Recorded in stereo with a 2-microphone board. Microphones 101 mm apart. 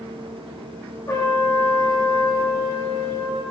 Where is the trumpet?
35° left (ahead or behind), 6 m.